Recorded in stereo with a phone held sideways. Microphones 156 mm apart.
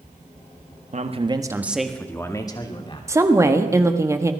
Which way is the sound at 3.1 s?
20° right (ahead or behind).